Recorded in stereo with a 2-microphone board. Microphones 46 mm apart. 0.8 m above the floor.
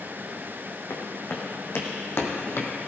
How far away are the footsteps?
About 3 m.